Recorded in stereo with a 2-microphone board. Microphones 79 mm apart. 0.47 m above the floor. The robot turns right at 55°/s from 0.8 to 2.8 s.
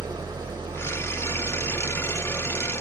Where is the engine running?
70° right, 1.1 m; by 2.8 s 40° left, 1.1 m.